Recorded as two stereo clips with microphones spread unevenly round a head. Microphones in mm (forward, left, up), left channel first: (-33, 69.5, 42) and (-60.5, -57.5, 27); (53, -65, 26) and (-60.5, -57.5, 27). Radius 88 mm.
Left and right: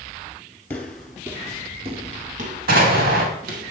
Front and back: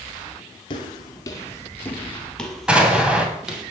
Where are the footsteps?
15° left, 1.7 m; by 3.7 s 105° right, 3 m.